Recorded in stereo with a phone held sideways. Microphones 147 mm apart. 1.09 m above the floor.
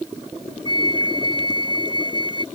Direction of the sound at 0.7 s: 35° left (ahead or behind).